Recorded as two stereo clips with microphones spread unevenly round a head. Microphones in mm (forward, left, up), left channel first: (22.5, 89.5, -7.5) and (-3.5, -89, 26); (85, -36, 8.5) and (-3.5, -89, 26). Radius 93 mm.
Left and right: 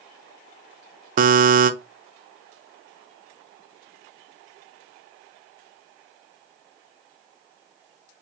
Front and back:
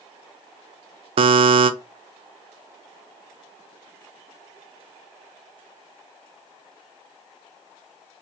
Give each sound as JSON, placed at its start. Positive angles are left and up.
{"t": 1.2, "sound": "a buzzer", "azimuth_deg": -140, "distance_m": 0.6}